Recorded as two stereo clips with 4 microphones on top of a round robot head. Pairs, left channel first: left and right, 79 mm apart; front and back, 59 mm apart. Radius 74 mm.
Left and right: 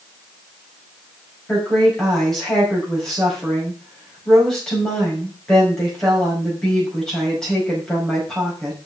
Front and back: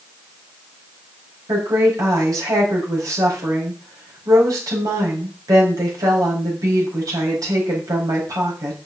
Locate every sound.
1.5 s a woman speaking: 175° left, 5 m